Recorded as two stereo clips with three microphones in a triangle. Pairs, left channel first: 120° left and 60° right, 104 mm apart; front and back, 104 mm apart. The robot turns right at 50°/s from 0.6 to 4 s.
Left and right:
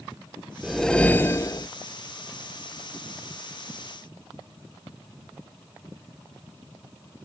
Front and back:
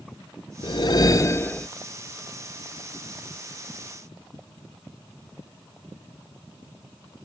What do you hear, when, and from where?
0.6 s a whoosh: 25° left; by 1.7 s 75° left